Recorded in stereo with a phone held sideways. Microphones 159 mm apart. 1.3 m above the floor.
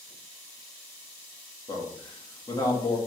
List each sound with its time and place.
1.7 s a man speaking: 25° left (ahead or behind), 2 m